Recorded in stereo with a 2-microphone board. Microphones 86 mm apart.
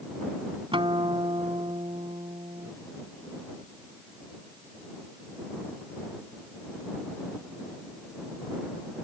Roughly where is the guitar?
Right.